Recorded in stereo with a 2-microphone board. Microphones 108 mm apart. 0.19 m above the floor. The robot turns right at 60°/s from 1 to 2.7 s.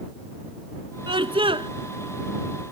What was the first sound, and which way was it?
A scream, 110° right.